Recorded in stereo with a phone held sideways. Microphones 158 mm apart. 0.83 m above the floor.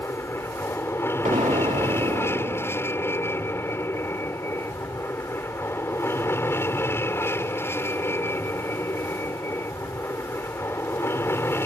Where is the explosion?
50° right (ahead or behind).